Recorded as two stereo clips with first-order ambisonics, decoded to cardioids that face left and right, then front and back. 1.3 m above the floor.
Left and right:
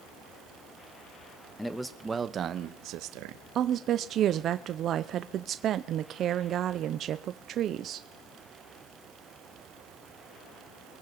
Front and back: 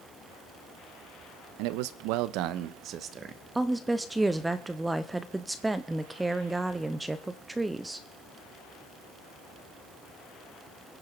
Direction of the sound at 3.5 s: 105° right.